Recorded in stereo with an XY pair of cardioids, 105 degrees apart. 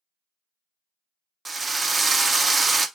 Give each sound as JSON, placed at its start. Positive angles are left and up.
{"t": 1.4, "sound": "a drill", "azimuth_deg": -25, "distance_m": 0.5}